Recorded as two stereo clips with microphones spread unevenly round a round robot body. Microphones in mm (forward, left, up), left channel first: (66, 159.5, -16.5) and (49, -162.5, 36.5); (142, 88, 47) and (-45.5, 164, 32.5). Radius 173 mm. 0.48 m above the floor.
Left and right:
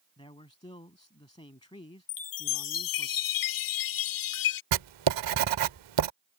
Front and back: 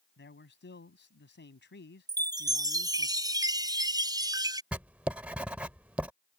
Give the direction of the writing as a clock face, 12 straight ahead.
4 o'clock.